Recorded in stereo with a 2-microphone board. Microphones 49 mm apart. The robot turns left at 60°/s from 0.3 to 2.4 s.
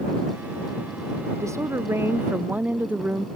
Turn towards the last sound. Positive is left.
turn(degrees=-150)